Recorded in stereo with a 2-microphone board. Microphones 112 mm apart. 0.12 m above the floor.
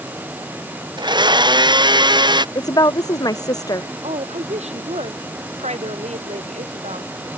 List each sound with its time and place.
1.0 s a blender: 40° right (ahead or behind)
2.5 s a woman speaking: 35° left (ahead or behind)
4.0 s a woman speaking: 75° right (ahead or behind)